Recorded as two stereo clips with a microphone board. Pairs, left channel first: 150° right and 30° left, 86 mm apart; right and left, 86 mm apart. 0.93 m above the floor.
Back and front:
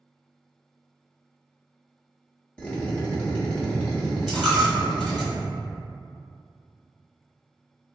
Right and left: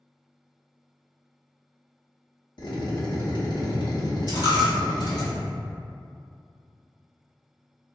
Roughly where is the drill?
Right.